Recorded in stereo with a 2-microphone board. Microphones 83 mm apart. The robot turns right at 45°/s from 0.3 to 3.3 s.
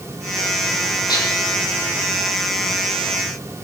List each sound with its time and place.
1.1 s dishes clattering: 60° left (ahead or behind), 4.5 m; by 1.3 s 50° left (ahead or behind), 4.5 m